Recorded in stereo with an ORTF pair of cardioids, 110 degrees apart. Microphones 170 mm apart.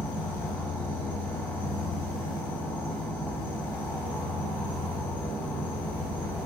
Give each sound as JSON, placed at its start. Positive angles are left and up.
{"t": 0.0, "sound": "an insect", "azimuth_deg": 10, "distance_m": 0.9}